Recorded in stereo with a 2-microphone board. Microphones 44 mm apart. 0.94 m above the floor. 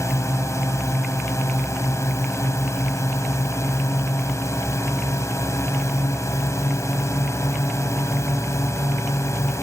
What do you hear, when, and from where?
0.0 s a drone: 80° left